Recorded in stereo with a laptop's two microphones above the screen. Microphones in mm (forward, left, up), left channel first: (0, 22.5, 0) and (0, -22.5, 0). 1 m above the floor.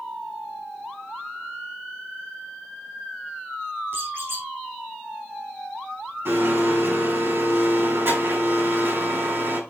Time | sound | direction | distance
3.9 | a squeak | 65° right (ahead or behind) | 4 m
6.2 | a blender | 65° right (ahead or behind) | 5 m